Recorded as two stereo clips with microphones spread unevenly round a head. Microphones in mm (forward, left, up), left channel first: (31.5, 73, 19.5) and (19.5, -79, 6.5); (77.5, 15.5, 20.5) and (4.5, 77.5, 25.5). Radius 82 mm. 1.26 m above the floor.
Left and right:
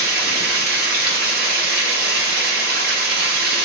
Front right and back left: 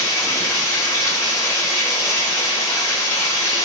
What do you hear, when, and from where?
0.0 s running water: 115° right, 1.3 m